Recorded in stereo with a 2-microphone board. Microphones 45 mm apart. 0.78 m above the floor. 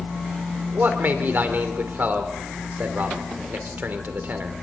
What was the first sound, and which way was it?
A man speaking, 45° right (ahead or behind).